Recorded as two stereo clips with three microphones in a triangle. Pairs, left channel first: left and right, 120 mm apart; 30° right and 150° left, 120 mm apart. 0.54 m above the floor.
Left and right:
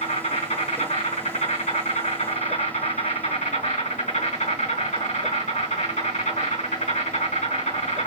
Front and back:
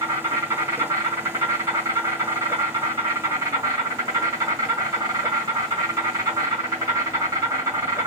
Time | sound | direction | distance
0.0 | an insect | 90° left | 3.5 m